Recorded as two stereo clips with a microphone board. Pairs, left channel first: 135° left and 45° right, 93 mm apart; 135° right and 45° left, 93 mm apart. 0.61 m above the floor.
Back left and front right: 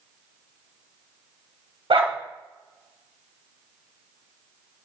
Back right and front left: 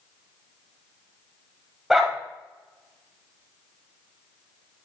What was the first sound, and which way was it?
A dog barking, 40° right.